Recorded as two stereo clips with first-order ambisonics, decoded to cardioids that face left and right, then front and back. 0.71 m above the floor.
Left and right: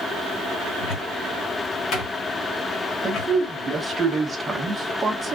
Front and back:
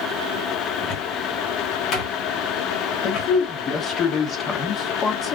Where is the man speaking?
30° right, 0.9 m.